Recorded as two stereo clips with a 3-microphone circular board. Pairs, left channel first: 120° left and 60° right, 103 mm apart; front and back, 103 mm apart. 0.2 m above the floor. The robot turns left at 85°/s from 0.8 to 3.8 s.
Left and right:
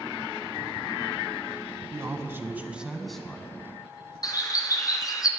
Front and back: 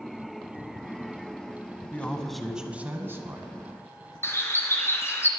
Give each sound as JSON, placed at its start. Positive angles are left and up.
{"t": 1.9, "sound": "a man speaking", "azimuth_deg": -55, "distance_m": 1.1}
{"t": 4.2, "sound": "a bird", "azimuth_deg": 65, "distance_m": 1.3}